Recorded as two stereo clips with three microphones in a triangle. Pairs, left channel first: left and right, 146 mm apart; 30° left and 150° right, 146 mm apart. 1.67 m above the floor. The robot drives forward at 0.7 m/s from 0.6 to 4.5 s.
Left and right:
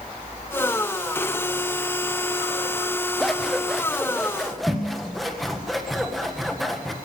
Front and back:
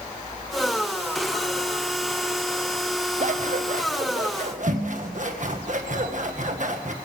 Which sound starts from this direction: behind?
Scissors, at 3.2 s.